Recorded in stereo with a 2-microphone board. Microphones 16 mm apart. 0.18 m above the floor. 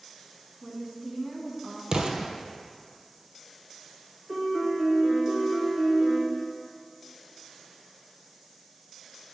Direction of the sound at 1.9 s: 60° right (ahead or behind).